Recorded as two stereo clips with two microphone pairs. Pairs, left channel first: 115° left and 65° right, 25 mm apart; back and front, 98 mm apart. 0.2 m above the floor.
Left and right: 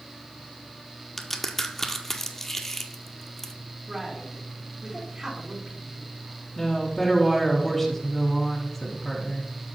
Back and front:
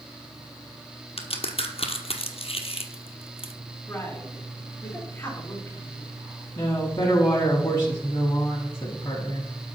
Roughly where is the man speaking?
Behind right.